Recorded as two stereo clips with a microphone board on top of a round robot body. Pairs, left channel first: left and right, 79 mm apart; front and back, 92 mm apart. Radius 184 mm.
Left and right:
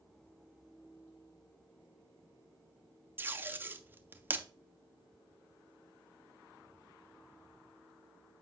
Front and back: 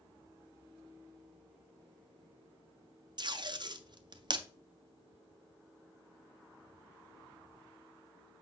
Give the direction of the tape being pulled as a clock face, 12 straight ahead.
5 o'clock.